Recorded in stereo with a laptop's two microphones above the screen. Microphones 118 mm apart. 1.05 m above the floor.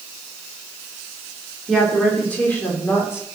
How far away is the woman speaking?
About 3.5 m.